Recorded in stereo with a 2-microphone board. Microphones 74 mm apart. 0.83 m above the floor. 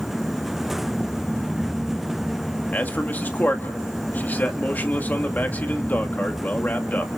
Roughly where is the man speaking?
Left.